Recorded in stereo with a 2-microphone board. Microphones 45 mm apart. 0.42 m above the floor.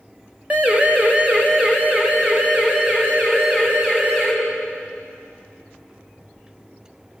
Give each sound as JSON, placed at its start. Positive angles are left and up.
{"t": 0.5, "sound": "a siren", "side_deg": -35, "distance_m": 2.5}